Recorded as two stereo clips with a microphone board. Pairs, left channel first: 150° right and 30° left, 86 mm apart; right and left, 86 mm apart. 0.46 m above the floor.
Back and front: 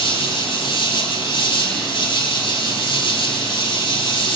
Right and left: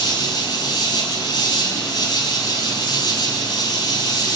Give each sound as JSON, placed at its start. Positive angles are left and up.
{"t": 0.0, "sound": "an insect", "azimuth_deg": -130, "distance_m": 4.0}